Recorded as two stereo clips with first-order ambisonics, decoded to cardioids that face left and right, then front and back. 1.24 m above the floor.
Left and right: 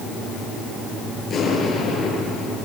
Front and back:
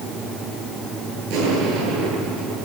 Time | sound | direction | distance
1.3 | an explosion | 155° left | 8.5 m